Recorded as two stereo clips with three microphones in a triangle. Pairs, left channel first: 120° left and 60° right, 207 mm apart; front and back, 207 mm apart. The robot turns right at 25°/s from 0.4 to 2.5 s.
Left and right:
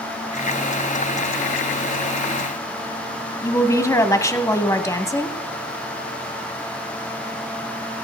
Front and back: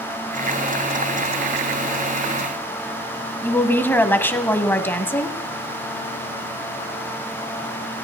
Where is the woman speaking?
65° left, 1.2 m.